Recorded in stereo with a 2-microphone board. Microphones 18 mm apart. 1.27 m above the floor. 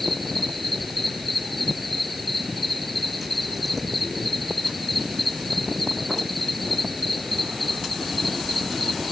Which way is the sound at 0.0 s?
Centre (ahead or behind).